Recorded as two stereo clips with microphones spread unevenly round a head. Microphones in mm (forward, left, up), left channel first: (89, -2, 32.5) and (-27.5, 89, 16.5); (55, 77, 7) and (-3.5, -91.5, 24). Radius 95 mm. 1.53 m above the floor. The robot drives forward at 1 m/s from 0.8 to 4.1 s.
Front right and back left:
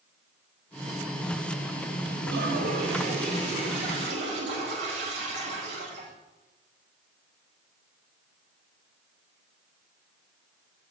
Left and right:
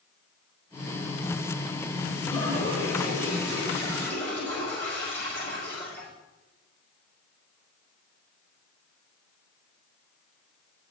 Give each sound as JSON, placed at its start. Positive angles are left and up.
{"t": 2.3, "sound": "a toilet flushing", "azimuth_deg": 140, "distance_m": 4.5}